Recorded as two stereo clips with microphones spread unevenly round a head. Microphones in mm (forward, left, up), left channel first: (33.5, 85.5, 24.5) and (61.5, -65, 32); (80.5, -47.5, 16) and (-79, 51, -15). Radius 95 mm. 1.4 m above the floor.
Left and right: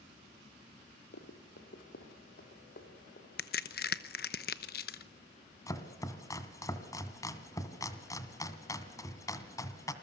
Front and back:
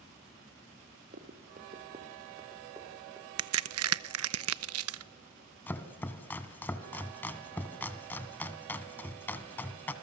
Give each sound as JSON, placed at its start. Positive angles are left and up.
{"t": 1.1, "sound": "running footsteps", "azimuth_deg": 100, "distance_m": 2.5}
{"t": 3.4, "sound": "a crack", "azimuth_deg": 145, "distance_m": 0.8}
{"t": 5.7, "sound": "chopping", "azimuth_deg": 35, "distance_m": 1.7}